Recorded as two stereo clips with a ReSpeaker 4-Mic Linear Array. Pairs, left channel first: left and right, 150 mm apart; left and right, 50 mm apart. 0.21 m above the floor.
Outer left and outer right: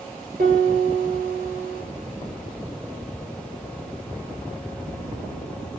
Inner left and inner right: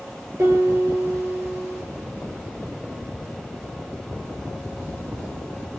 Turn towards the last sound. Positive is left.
turn(degrees=-70)  # may be behind; listen again after turning